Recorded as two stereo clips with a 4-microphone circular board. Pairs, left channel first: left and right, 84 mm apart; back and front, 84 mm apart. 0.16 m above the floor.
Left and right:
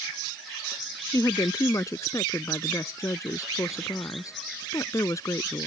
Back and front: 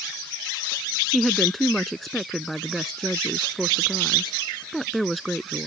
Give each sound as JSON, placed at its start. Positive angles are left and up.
{"t": 1.1, "sound": "a woman speaking", "azimuth_deg": 95}